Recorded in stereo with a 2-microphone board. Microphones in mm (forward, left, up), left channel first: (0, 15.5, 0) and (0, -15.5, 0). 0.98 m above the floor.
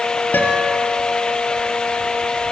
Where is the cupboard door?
No cupboard door in this recording.